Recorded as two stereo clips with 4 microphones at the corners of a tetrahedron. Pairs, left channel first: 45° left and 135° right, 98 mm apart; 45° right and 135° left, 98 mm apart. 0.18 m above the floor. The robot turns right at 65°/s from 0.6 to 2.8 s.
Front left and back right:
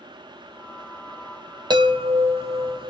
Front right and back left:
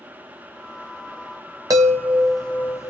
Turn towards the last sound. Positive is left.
turn(degrees=-105)